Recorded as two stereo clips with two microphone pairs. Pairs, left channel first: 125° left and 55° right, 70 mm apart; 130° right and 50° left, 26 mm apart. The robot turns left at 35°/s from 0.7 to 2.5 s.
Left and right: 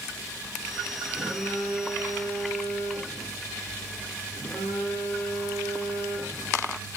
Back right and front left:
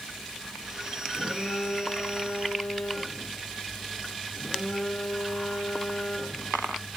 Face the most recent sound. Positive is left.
turn(degrees=160)